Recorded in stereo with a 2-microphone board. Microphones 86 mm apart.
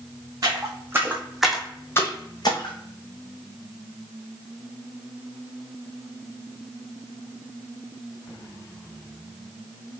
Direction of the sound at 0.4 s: 40° right (ahead or behind).